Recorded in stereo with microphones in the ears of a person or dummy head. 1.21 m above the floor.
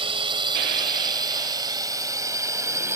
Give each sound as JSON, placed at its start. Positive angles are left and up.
{"t": 0.0, "sound": "a drone", "side_deg": -25}